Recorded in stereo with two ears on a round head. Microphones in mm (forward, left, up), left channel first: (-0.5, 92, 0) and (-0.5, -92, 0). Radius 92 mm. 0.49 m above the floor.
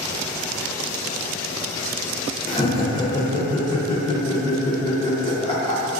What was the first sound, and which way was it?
Laughter, 20° left (ahead or behind).